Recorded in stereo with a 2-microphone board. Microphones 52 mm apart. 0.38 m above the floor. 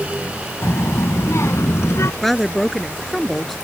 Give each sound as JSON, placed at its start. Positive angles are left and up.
{"t": 0.6, "sound": "a child speaking", "side_deg": 60}
{"t": 2.2, "sound": "a woman speaking", "side_deg": 5}